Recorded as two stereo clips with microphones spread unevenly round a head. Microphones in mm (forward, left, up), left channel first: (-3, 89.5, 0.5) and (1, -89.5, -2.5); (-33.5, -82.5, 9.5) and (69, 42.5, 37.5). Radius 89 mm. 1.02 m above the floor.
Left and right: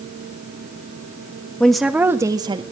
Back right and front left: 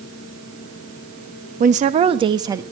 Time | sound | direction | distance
1.6 | a woman speaking | 5° left | 1.3 m